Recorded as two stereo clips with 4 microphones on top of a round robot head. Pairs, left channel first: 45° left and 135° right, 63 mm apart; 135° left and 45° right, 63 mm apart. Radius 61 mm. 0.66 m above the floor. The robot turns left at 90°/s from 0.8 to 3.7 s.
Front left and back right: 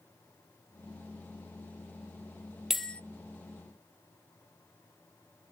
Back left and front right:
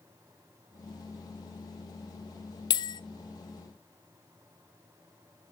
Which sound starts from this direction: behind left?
A bell, at 2.7 s.